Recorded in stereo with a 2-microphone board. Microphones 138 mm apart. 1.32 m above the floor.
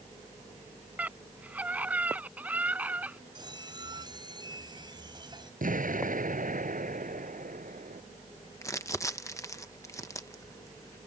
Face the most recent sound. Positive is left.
turn(degrees=25)  # may be behind; listen again after turning